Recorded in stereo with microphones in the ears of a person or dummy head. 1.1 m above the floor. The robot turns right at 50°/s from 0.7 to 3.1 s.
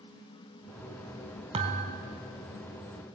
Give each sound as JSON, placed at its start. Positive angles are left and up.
{"t": 1.5, "sound": "a thud", "side_deg": -30, "distance_m": 2.0}